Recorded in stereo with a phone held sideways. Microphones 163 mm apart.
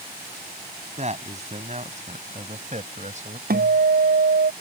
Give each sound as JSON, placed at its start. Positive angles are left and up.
{"t": 1.0, "sound": "a man speaking", "side_deg": -45}
{"t": 3.5, "sound": "a guitar", "side_deg": -70}